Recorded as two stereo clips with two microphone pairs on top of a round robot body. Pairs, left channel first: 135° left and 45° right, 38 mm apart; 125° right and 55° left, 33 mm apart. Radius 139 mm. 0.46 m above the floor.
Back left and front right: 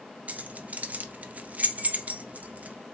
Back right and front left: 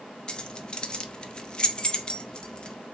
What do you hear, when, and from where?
0.3 s keys jangling: 70° right, 0.6 m